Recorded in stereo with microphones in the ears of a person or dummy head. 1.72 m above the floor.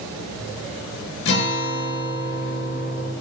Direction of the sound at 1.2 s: 60° left (ahead or behind).